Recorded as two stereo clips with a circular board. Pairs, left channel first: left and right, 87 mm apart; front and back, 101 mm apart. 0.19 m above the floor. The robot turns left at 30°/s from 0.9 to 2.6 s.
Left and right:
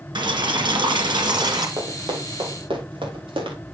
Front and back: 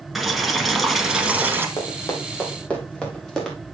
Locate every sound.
0.1 s boiling: 90° right, 1.7 m; by 1.7 s 115° right, 1.7 m
1.8 s running footsteps: 45° right, 4.5 m; by 3.6 s 85° right, 5 m